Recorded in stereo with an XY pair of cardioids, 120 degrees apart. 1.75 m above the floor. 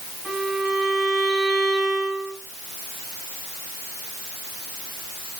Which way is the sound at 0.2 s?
20° right.